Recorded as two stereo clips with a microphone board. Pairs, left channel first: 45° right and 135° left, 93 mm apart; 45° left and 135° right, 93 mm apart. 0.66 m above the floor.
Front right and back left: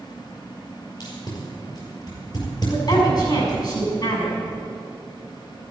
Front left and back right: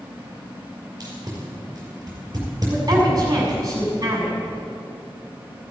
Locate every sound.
1.0 s tape being pulled: 85° right, 6 m
2.7 s a woman speaking: 85° right, 6.5 m